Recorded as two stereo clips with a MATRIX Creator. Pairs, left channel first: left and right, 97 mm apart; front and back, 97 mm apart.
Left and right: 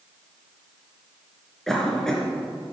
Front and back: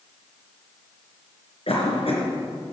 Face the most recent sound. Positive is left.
turn(degrees=5)